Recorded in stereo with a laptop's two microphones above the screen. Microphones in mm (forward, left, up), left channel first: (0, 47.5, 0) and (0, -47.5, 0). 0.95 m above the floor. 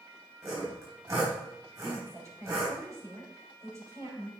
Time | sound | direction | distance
0.4 | sawing | 35° right (ahead or behind) | 4 m
1.8 | a woman speaking | 35° right (ahead or behind) | 3.5 m